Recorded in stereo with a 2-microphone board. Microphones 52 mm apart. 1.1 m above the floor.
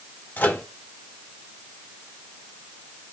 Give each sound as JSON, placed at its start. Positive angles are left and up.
{"t": 0.4, "sound": "a microwave", "side_deg": 35, "distance_m": 1.3}